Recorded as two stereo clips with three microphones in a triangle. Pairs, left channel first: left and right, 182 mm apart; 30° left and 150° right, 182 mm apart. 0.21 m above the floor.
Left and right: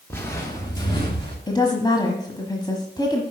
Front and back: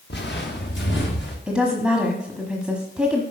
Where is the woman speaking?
130° left, 1.2 m.